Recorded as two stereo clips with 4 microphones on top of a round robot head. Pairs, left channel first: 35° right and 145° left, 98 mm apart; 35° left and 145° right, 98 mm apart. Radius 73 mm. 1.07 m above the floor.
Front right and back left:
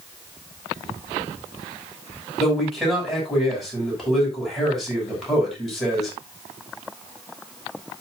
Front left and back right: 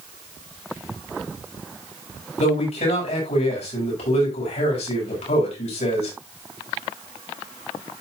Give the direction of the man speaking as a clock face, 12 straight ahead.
10 o'clock.